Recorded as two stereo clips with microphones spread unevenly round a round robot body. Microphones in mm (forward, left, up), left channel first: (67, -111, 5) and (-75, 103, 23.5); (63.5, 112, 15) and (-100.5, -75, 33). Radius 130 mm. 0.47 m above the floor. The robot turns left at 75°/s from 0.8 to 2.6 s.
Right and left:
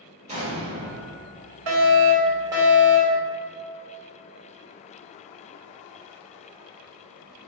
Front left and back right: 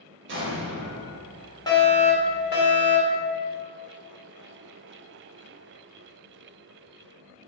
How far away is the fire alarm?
About 2.5 m.